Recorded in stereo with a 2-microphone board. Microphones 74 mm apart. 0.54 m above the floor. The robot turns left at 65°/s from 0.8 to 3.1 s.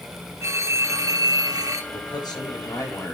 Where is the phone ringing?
50° right, 1.0 m; by 1.8 s 115° right, 1.0 m.